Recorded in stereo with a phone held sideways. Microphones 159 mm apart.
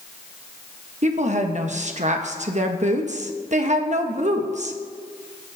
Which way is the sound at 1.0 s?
50° right (ahead or behind).